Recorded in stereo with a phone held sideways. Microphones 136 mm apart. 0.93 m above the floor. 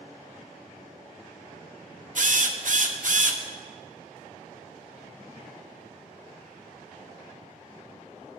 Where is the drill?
60° right (ahead or behind), 0.7 m.